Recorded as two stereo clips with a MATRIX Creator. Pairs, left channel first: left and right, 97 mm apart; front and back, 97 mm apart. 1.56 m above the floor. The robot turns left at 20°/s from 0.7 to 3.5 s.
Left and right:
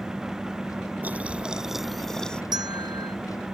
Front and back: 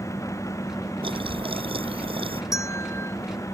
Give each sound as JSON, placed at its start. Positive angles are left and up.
{"t": 1.0, "sound": "boiling", "azimuth_deg": -160}
{"t": 2.5, "sound": "a bell", "azimuth_deg": -50}